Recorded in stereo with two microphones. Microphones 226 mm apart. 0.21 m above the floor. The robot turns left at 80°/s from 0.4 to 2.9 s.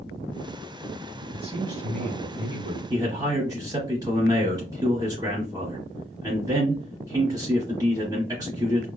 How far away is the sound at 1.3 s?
About 1.7 m.